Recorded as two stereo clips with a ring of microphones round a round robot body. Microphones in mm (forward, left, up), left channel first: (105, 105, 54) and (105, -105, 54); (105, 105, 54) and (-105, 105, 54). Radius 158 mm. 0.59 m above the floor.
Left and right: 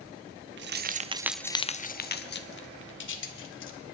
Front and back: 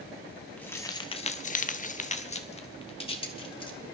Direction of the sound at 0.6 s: 85° right.